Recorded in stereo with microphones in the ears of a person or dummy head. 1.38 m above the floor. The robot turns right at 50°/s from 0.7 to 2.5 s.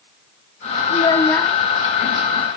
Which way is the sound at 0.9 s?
145° left.